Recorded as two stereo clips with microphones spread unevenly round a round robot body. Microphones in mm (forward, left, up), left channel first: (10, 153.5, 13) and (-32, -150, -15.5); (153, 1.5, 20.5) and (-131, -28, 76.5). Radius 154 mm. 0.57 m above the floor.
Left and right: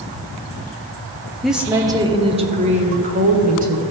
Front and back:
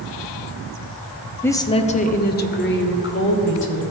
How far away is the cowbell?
No cowbell in this recording.